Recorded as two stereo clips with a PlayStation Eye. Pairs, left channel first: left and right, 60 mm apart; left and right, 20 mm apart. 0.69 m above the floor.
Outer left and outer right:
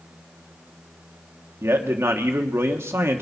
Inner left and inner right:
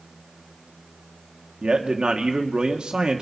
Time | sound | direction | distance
1.6 | a man speaking | 45° right (ahead or behind) | 1.4 m